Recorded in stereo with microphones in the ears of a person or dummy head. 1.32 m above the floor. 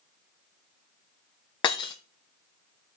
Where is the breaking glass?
25° left (ahead or behind), 0.6 m.